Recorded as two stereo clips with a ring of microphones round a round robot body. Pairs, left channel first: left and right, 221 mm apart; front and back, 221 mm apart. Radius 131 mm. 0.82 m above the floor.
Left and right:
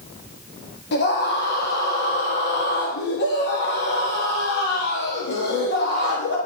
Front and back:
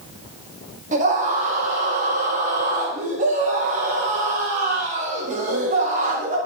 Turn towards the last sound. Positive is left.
turn(degrees=125)